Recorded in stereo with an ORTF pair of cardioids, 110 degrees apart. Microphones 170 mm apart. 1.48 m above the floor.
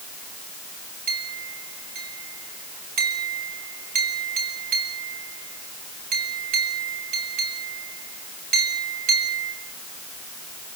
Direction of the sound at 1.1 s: 55° right.